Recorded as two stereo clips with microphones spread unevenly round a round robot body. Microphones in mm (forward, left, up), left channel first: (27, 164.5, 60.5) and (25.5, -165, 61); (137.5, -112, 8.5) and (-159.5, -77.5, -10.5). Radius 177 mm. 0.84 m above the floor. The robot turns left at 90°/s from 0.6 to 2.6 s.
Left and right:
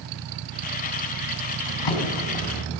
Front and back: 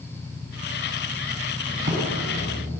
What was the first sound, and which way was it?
A drawer, 130° left.